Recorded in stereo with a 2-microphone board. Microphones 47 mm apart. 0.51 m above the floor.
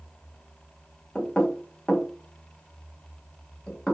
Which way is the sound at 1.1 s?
15° left (ahead or behind).